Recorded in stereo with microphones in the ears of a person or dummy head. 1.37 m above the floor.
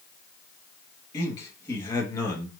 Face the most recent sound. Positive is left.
turn(degrees=15)  # may be behind; listen again after turning